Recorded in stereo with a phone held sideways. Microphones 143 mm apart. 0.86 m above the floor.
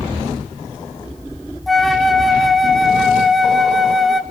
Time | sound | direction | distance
1.7 | a flute | centre (ahead or behind) | 0.7 m